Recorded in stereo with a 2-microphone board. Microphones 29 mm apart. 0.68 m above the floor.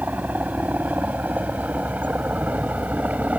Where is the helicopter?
75° right (ahead or behind); by 3.4 s 60° right (ahead or behind).